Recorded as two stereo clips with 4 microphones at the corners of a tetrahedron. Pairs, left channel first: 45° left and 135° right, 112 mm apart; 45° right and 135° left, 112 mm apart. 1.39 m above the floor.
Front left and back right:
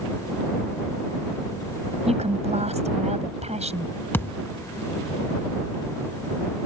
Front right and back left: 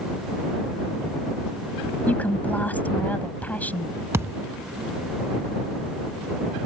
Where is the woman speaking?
120° right.